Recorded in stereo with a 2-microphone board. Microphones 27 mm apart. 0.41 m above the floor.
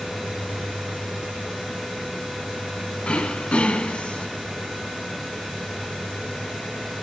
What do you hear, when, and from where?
3.0 s throat clearing: 55° left (ahead or behind), 0.7 m